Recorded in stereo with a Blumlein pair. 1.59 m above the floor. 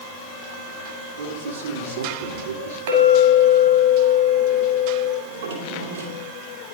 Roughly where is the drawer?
Ahead right.